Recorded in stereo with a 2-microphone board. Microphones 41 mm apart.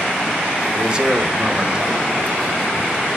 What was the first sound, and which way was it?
A man speaking, 25° right (ahead or behind).